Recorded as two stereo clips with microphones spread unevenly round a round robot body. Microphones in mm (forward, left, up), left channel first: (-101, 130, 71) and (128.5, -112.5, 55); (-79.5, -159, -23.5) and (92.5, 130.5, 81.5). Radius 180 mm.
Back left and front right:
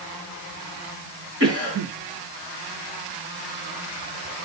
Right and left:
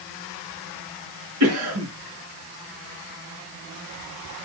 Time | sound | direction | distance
1.4 | a cough | 10° left | 6 m